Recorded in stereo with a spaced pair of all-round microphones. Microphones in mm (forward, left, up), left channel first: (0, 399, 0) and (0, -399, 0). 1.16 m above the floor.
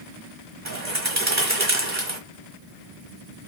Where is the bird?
20° right (ahead or behind), 1.4 m.